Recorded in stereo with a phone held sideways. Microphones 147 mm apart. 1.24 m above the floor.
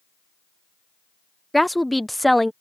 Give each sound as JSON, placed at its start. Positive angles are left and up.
{"t": 1.5, "sound": "a woman speaking", "side_deg": 0}